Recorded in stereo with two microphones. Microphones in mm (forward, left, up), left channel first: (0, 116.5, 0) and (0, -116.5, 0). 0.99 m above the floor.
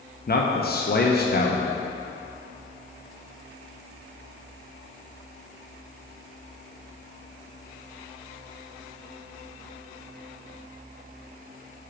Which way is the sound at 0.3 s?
45° left (ahead or behind).